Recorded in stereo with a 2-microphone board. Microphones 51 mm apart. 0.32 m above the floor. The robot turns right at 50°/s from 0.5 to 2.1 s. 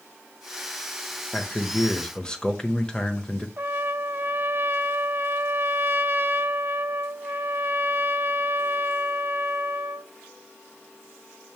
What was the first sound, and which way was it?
A man speaking, 20° left (ahead or behind).